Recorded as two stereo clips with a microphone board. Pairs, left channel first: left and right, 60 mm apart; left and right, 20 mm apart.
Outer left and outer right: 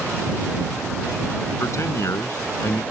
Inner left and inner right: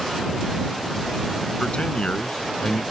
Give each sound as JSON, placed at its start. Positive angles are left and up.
{"t": 1.6, "sound": "a man speaking", "side_deg": 55}